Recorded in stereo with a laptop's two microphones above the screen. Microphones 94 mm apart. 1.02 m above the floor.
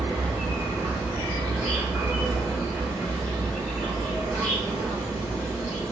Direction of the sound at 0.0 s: 5° left (ahead or behind).